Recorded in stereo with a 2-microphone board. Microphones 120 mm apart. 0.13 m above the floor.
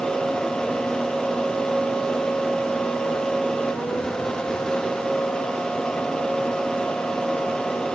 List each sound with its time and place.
Only background noise.